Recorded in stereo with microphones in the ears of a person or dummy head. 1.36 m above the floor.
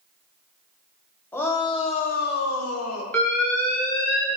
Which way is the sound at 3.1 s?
10° left (ahead or behind).